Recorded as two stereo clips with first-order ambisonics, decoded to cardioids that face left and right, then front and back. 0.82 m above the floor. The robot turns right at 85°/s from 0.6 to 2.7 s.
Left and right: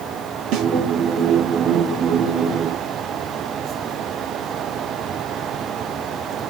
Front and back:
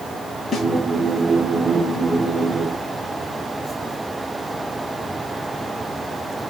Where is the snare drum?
75° right, 1.0 m; by 0.7 s 70° right, 1.0 m.